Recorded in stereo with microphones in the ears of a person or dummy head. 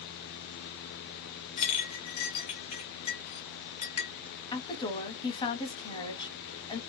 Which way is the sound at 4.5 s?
25° left (ahead or behind).